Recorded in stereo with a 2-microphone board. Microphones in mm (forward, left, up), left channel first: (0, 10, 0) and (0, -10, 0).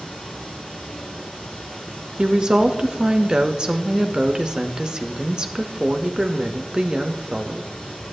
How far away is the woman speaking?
About 0.7 m.